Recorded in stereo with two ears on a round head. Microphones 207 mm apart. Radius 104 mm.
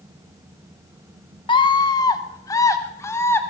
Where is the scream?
20° left (ahead or behind), 1.3 m; by 3.4 s 10° left (ahead or behind), 2 m.